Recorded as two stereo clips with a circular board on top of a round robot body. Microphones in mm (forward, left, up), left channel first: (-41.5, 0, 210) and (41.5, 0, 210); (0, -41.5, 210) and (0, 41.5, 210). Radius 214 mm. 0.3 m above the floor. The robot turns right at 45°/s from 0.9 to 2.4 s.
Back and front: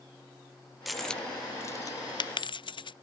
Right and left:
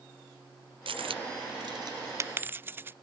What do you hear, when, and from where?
0.9 s a dropped coin: 90° left; by 2.9 s 155° left